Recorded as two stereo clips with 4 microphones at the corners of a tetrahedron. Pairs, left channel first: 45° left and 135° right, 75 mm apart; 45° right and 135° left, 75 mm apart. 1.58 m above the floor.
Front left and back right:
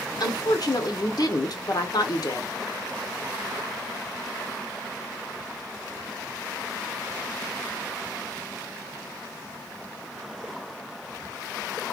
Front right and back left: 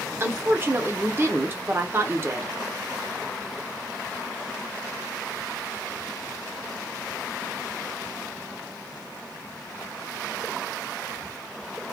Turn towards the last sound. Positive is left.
turn(degrees=75)